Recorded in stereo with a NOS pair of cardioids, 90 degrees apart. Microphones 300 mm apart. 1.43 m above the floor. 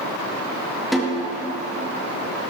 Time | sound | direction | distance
0.9 | a snare drum | straight ahead | 3.5 m